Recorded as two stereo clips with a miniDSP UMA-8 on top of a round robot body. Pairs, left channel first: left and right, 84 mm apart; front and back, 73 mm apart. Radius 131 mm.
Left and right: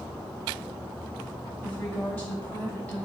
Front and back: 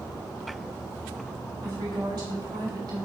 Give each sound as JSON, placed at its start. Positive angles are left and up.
{"t": 1.6, "sound": "a woman speaking", "azimuth_deg": 160, "distance_m": 5.5}